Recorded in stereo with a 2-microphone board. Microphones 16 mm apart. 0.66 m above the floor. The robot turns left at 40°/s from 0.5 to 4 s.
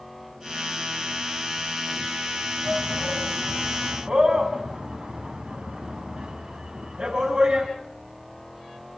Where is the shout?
35° right (ahead or behind), 5 m; by 7.7 s 80° right, 5 m.